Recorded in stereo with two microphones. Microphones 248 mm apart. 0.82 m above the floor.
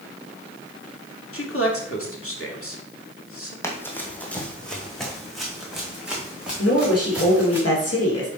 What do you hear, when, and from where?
1.3 s a man speaking: 60° left (ahead or behind), 2 m
3.6 s running footsteps: 10° left (ahead or behind), 1.6 m; by 7.6 s 5° right (ahead or behind), 4 m
6.6 s a woman speaking: 75° left (ahead or behind), 2.5 m